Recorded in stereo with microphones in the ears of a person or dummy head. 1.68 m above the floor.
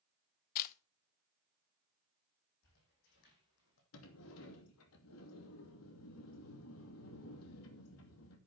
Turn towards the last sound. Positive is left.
turn(degrees=75)  # may be behind; listen again after turning